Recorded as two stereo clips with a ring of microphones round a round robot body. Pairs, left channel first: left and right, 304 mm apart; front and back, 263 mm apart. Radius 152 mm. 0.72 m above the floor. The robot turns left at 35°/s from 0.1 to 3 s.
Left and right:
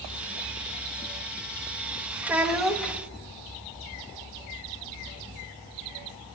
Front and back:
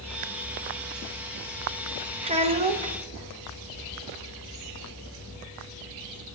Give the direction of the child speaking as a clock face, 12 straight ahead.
6 o'clock.